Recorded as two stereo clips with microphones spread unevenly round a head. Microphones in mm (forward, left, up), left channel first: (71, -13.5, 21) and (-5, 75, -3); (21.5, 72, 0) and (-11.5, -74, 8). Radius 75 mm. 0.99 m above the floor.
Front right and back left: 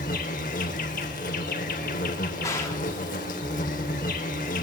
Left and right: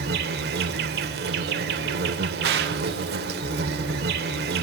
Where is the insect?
85° right, 2.0 m.